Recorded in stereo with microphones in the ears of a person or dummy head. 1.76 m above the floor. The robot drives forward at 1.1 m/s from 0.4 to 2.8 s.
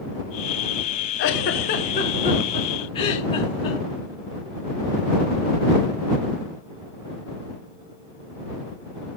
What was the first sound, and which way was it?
A giggle, 55° left (ahead or behind).